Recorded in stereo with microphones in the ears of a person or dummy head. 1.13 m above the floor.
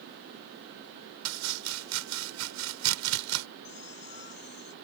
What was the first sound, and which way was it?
Chopping, 85° right.